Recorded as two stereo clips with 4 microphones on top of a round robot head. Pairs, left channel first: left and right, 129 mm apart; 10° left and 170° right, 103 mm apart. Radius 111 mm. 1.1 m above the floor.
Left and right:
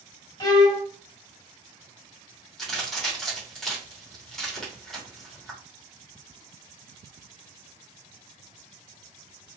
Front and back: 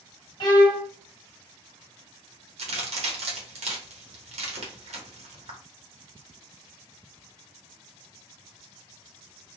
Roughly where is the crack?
Behind.